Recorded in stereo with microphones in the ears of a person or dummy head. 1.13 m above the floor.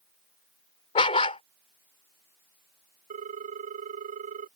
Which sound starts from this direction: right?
A ringtone, at 3.1 s.